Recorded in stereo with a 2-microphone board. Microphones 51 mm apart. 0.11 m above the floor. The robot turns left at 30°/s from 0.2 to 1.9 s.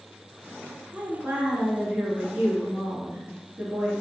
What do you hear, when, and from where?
0.9 s a woman speaking: 30° right (ahead or behind), 1.3 m